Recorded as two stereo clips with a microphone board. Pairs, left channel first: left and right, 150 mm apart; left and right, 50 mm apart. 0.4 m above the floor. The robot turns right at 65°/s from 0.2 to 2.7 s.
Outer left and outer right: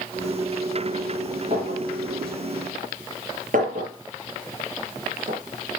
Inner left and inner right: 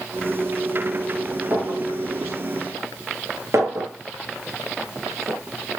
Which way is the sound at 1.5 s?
40° right (ahead or behind).